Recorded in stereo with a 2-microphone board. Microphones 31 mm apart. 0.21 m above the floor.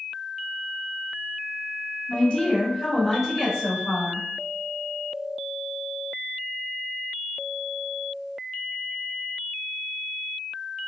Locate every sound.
2.1 s a woman speaking: 35° left (ahead or behind), 1.8 m; by 4.3 s 25° right (ahead or behind), 1.8 m